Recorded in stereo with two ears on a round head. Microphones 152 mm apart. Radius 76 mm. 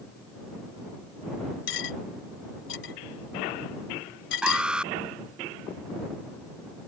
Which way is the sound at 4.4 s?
5° right (ahead or behind).